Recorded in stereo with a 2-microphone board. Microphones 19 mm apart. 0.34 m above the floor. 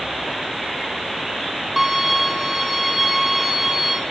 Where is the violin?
5° right (ahead or behind), 3.5 m.